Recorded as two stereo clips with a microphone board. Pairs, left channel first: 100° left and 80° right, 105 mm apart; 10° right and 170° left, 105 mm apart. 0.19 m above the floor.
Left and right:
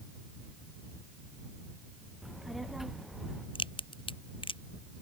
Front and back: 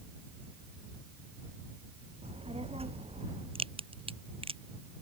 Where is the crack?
140° left.